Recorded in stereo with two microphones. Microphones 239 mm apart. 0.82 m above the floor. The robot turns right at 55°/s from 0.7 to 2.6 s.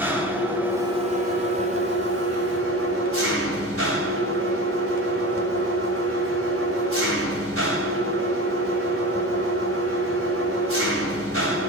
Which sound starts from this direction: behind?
An engine running, at 0.0 s.